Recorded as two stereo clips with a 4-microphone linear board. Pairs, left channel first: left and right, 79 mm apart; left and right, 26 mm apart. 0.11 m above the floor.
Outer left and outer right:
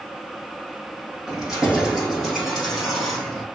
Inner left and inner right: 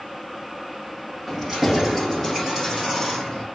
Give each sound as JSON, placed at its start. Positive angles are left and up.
{"t": 1.3, "sound": "keys jangling", "side_deg": -10, "distance_m": 3.5}